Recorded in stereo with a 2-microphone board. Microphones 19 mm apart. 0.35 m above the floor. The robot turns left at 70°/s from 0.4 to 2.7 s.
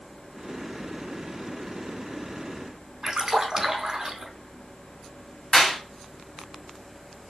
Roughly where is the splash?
Right.